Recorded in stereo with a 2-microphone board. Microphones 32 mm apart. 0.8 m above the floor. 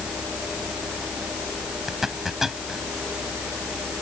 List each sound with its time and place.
1.9 s a zipper: 10° right (ahead or behind)